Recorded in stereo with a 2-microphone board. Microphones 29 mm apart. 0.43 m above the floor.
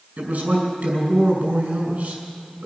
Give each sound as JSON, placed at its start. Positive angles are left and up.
{"t": 0.2, "sound": "a man speaking", "side_deg": -55, "distance_m": 5.0}